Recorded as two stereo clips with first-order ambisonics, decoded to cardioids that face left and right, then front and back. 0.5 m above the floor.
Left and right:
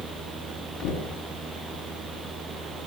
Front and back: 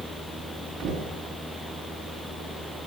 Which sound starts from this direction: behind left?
Knocking, at 0.8 s.